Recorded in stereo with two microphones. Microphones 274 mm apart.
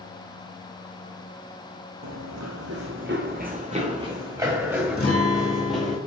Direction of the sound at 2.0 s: 85° right.